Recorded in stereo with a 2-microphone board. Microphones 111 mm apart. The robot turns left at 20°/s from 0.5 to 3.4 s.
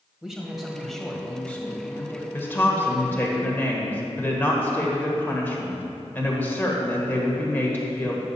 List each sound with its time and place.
0.2 s a man speaking: 175° right, 1.7 m; by 2.2 s 150° left, 1.7 m
2.3 s a woman speaking: 20° left (ahead or behind), 1.4 m